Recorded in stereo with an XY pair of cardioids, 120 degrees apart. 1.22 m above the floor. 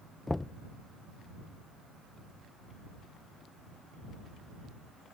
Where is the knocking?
15° left.